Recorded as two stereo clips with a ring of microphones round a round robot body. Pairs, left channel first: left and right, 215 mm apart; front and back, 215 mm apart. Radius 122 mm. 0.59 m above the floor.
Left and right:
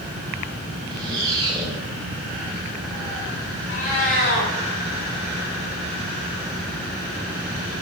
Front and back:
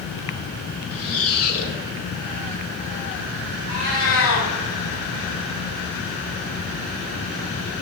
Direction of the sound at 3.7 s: 30° left.